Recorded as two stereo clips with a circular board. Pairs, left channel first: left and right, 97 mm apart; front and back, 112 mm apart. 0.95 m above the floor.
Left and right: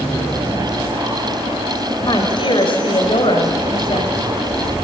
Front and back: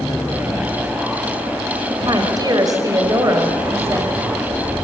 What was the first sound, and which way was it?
A woman speaking, 130° left.